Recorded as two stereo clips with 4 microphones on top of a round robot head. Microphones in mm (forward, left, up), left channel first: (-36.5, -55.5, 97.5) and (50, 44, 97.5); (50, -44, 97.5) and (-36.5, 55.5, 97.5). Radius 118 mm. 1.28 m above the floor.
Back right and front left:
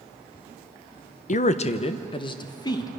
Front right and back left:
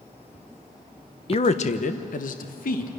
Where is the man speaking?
100° right, 0.9 m; by 2.9 s 65° right, 1.7 m.